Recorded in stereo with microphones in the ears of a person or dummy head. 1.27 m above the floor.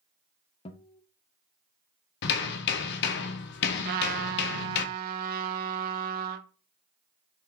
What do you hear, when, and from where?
0.7 s a guitar: 25° left (ahead or behind), 0.6 m
2.2 s hammering: 55° left (ahead or behind), 0.7 m
3.9 s a trumpet: 45° right (ahead or behind), 0.5 m